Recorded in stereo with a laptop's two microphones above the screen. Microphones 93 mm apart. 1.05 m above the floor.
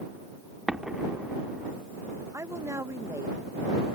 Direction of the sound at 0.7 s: 5° right (ahead or behind).